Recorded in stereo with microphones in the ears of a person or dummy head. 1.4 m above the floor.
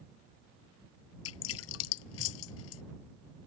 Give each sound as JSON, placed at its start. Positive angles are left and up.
{"t": 1.2, "sound": "dripping", "side_deg": 80}